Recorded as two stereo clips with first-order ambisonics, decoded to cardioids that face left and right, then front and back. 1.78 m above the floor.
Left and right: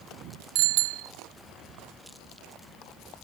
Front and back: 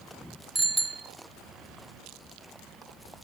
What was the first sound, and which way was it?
A bicycle bell, 100° right.